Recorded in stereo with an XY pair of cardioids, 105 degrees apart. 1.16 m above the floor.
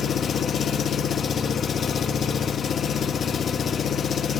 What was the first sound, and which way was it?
An engine running, 50° left.